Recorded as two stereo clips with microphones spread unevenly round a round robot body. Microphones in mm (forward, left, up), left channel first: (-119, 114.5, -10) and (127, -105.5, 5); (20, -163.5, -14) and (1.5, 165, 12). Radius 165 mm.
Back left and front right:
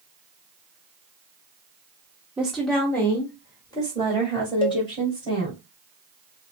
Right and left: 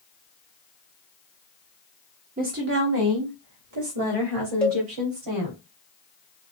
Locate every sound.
2.4 s a woman speaking: 45° left, 0.9 m; by 5.6 s 65° left, 2.5 m
4.6 s a cowbell: 165° right, 0.8 m